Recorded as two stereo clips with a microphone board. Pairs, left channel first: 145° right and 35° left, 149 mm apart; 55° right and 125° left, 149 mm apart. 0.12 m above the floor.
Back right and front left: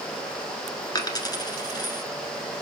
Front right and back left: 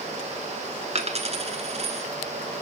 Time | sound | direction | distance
0.9 | a dropped coin | 160° left | 1.2 m